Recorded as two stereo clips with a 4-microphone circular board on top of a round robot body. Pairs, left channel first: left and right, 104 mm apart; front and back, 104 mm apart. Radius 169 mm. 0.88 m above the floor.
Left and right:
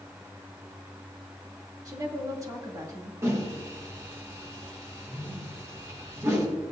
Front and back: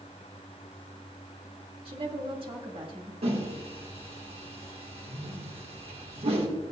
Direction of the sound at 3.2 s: 155° right.